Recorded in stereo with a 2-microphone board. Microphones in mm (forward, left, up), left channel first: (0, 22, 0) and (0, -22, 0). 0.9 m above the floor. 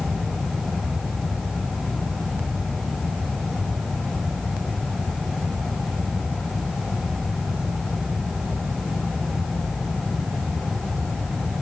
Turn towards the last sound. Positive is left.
No sound to turn to.